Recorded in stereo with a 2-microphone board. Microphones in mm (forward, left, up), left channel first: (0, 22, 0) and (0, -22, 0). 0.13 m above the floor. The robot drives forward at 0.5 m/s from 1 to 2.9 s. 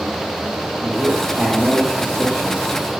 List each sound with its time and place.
0.8 s a man speaking: 20° right (ahead or behind), 6.5 m; by 2.9 s 15° right (ahead or behind), 7.5 m